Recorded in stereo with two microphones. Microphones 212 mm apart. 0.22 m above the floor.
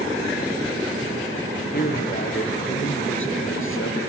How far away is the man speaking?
About 4 m.